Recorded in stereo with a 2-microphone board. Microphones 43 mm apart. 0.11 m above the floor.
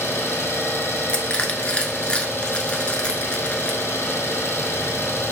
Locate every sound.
0.0 s an engine running: 75° left (ahead or behind), 1.1 m
1.1 s crushing: 25° left (ahead or behind), 0.9 m